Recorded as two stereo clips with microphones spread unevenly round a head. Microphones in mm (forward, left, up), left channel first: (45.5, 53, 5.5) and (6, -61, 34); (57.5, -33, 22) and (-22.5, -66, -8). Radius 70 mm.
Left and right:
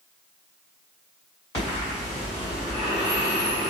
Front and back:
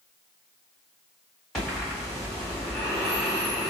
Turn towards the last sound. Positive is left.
turn(degrees=120)